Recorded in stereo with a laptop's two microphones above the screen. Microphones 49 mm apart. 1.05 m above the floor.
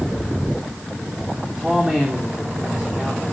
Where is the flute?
No flute in this recording.